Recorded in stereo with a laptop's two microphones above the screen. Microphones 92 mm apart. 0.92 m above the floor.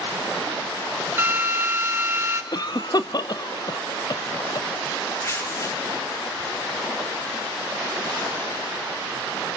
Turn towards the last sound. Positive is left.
turn(degrees=30)  # may be behind; listen again after turning